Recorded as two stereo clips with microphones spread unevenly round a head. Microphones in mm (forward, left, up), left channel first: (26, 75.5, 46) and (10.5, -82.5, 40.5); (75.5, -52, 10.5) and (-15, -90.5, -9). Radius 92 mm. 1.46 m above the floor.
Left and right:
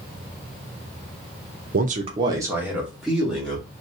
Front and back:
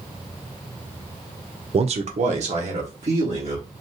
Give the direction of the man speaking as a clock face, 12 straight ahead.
4 o'clock.